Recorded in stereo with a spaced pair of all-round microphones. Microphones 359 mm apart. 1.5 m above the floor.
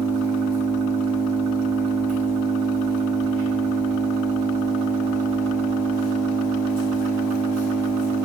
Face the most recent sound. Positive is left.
turn(degrees=75)  # may be behind; listen again after turning